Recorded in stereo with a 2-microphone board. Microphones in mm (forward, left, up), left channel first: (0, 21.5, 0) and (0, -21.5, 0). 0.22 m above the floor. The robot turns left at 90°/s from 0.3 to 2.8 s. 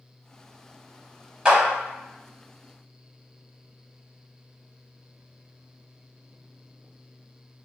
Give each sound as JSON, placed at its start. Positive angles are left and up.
{"t": 1.4, "sound": "a clap", "side_deg": -20, "distance_m": 1.0}